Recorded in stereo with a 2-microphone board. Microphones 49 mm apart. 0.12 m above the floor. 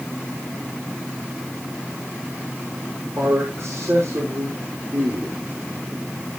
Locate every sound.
3.2 s a man speaking: 75° right (ahead or behind), 5 m